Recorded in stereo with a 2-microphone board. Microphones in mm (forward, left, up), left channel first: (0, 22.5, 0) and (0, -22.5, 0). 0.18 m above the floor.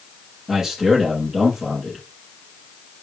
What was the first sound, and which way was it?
A man speaking, 10° right (ahead or behind).